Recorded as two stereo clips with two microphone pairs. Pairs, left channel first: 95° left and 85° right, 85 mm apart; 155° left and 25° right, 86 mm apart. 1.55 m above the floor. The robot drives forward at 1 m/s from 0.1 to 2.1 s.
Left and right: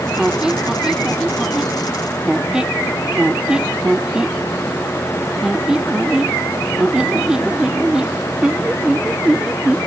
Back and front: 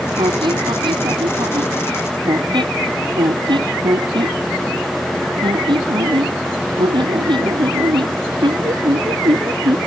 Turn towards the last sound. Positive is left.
turn(degrees=-5)